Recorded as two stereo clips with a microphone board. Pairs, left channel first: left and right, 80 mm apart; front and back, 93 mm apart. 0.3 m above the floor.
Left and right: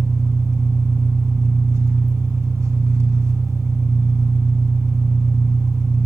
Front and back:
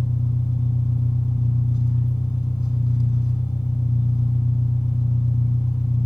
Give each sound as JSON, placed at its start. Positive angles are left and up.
{"t": 0.0, "sound": "an engine running", "azimuth_deg": -40, "distance_m": 0.7}